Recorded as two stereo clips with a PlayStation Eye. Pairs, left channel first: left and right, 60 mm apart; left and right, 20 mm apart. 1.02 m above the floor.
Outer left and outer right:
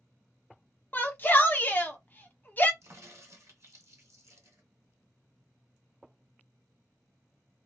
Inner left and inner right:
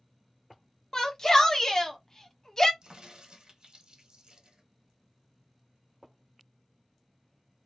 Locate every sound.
0.9 s a shout: 30° left (ahead or behind), 0.8 m
2.8 s a crack: 50° right (ahead or behind), 1.3 m